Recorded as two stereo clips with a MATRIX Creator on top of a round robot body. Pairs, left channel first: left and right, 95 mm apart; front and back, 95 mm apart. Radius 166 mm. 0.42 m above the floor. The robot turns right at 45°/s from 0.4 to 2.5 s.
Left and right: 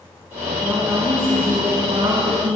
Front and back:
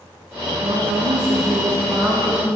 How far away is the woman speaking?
About 4 m.